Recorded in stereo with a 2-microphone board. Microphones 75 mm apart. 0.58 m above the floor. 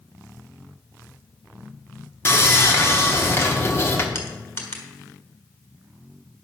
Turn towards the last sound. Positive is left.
turn(degrees=40)  # may be behind; listen again after turning